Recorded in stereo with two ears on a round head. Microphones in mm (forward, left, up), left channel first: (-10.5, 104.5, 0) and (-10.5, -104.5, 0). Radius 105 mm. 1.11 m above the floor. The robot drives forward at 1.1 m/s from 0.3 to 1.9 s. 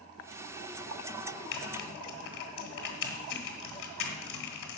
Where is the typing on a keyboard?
55° left (ahead or behind), 1.7 m; by 4.8 s 60° left (ahead or behind), 1.6 m.